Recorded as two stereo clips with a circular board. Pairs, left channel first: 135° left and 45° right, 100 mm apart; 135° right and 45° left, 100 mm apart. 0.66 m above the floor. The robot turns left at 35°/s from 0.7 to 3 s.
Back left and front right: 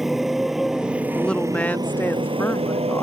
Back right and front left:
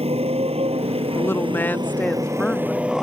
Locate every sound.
0.0 s a motorcycle: 40° left; by 3.0 s 40° right
1.1 s a woman speaking: 155° right; by 3.0 s 140° left